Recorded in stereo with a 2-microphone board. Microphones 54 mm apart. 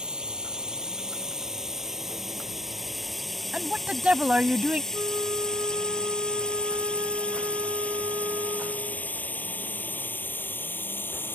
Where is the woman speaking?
25° right (ahead or behind).